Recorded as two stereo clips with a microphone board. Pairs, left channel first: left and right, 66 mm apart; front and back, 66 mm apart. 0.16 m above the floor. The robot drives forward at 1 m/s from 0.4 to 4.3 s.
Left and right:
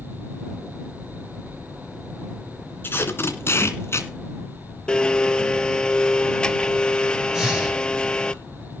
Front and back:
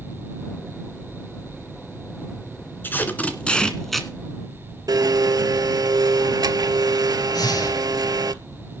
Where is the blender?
165° left, 0.6 m.